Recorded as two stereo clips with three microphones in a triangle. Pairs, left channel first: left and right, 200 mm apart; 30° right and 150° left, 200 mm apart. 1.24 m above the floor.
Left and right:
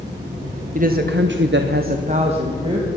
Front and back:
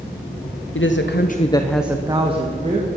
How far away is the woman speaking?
About 1.2 m.